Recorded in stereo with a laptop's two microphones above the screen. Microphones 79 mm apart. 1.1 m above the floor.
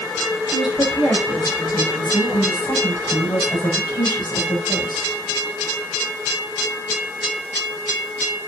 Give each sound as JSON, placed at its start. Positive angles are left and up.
{"t": 0.5, "sound": "a woman speaking", "side_deg": 75, "distance_m": 8.5}